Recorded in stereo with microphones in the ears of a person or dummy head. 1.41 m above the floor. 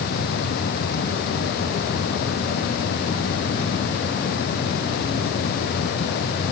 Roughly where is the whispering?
I don't hear whispering.